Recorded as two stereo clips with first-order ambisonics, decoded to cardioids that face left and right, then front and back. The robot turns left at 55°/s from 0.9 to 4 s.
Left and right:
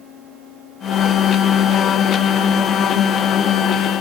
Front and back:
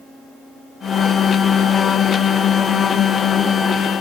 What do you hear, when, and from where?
Only background noise.